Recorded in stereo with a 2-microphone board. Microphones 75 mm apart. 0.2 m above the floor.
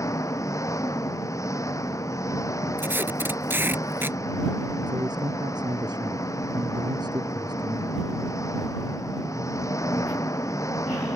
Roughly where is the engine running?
Left.